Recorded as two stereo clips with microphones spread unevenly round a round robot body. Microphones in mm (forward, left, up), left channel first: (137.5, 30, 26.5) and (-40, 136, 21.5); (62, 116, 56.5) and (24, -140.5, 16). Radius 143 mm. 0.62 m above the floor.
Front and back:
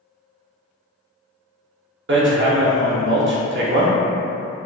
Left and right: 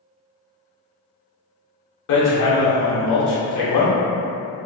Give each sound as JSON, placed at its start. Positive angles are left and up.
{"t": 2.1, "sound": "hammering", "azimuth_deg": 115, "distance_m": 0.6}